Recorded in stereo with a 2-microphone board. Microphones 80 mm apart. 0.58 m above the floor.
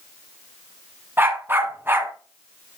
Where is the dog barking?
25° right (ahead or behind), 1.3 m.